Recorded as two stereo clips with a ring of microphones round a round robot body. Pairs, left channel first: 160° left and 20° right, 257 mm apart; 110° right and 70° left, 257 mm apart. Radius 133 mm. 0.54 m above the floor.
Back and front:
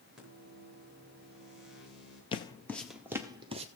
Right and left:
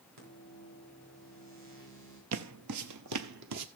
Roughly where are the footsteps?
Left.